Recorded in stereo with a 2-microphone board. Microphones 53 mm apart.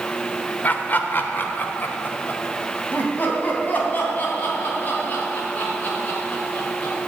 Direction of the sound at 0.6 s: 35° left (ahead or behind).